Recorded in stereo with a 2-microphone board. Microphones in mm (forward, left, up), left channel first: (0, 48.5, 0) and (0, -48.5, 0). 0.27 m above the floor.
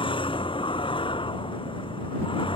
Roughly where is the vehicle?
Left.